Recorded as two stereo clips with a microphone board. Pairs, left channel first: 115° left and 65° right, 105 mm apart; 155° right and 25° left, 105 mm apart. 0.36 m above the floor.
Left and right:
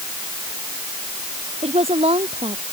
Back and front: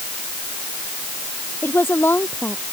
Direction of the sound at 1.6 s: 85° right.